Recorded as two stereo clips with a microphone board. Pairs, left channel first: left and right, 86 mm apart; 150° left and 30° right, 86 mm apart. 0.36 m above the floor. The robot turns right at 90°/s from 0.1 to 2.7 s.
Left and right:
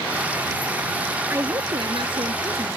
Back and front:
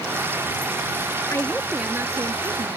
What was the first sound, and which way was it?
A woman speaking, 150° right.